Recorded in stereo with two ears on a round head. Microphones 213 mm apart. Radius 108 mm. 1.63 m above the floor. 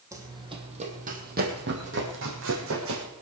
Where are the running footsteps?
15° right (ahead or behind), 3 m; by 3.0 s 65° right (ahead or behind), 5 m.